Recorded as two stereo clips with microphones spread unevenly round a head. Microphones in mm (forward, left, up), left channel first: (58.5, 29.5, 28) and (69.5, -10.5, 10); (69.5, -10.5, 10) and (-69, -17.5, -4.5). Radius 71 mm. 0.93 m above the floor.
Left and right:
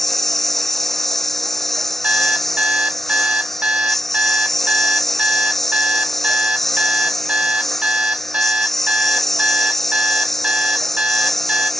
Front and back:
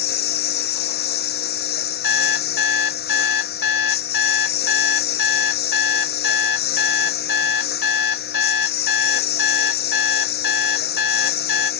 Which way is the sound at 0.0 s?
25° left.